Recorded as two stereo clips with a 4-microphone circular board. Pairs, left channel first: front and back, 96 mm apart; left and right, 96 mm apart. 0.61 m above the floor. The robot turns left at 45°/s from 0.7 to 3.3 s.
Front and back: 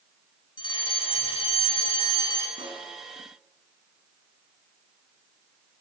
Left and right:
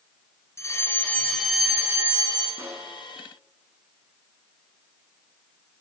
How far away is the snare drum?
About 7 m.